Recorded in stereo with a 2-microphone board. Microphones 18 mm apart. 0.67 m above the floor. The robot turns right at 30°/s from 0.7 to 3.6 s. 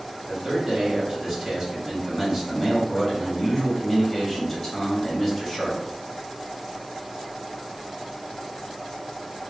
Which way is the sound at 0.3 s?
65° right.